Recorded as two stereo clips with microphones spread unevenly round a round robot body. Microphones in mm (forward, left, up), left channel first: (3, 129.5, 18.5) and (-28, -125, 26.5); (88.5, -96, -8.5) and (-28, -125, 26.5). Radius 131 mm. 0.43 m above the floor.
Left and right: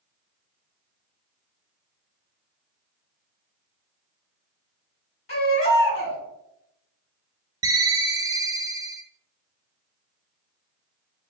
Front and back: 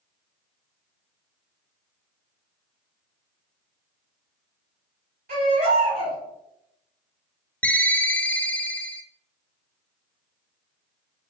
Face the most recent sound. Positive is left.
turn(degrees=-25)